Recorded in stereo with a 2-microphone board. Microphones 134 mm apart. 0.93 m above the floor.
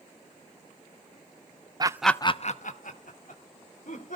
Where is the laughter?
30° right (ahead or behind), 0.6 m; by 4.2 s 85° left, 3 m.